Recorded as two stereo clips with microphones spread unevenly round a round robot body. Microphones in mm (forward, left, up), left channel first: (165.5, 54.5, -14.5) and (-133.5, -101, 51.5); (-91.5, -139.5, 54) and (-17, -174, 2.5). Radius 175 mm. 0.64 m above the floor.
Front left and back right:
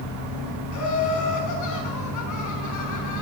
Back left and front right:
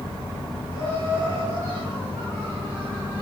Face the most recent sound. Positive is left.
turn(degrees=65)